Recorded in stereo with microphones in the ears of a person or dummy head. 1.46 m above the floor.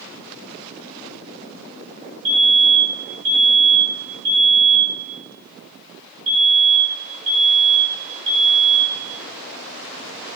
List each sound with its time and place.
2.2 s a fire alarm: 40° right (ahead or behind), 8 m